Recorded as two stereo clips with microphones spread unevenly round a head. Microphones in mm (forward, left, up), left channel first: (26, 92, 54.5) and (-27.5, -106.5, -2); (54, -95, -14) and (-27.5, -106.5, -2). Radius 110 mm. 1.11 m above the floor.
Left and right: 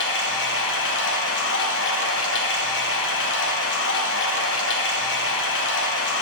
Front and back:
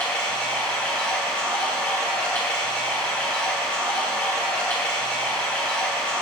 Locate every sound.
0.0 s running water: 80° left, 1.1 m